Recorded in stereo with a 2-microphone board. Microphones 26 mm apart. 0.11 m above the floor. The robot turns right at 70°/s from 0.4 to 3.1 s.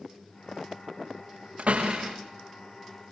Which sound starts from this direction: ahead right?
A door slam, at 1.6 s.